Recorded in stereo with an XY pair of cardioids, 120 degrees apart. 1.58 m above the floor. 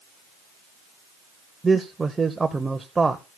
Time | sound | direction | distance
1.6 | a man speaking | 15° right | 0.8 m